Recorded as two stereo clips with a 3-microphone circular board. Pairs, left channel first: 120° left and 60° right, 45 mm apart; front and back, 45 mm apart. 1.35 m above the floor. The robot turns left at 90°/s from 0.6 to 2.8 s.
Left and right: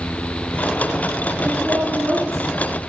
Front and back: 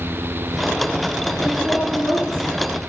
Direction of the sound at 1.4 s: 80° right.